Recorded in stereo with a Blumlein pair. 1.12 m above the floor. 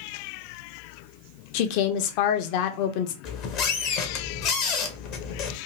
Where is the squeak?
35° left, 0.7 m.